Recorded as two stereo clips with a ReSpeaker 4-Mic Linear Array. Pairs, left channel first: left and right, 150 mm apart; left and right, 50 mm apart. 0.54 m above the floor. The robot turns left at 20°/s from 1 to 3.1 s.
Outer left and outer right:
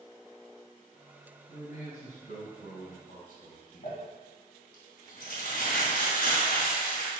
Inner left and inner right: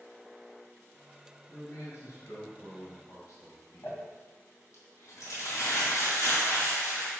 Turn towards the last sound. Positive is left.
turn(degrees=80)